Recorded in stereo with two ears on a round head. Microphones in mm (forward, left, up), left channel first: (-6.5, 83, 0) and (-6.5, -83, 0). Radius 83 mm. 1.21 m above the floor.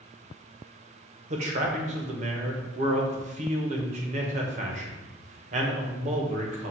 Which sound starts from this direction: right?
A man speaking, at 1.3 s.